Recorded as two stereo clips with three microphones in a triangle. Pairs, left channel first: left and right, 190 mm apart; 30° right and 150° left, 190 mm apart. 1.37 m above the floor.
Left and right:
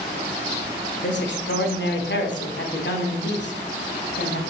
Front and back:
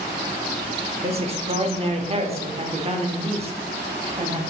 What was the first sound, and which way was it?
A man speaking, 95° left.